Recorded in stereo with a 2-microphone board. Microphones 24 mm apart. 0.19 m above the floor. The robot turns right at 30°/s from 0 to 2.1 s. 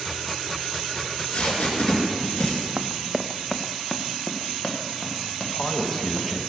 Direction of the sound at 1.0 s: 60° left (ahead or behind).